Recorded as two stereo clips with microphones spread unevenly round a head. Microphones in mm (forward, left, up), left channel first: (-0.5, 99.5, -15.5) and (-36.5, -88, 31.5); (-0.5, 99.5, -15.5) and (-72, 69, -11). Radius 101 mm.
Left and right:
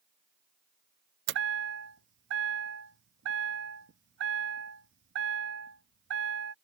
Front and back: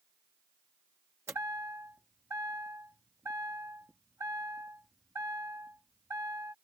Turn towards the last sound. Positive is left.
turn(degrees=-90)